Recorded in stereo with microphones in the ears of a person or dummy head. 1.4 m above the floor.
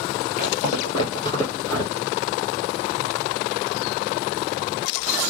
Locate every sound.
0.4 s footsteps: 45° left (ahead or behind), 2 m; by 2.1 s 15° left (ahead or behind), 2.0 m